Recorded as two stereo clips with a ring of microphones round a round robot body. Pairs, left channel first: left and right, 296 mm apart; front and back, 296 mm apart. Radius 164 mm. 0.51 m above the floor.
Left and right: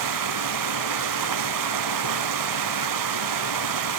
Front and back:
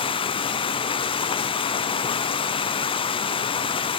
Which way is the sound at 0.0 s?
75° right.